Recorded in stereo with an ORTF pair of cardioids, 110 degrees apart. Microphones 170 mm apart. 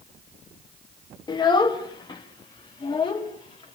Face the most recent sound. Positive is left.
turn(degrees=25)